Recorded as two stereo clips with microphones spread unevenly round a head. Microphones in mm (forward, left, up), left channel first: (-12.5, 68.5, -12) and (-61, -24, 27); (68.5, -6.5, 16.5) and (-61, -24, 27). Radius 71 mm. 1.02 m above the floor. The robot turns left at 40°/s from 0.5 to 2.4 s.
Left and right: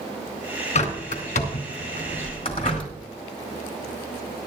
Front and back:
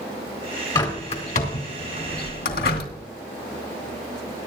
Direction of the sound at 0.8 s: 70° left.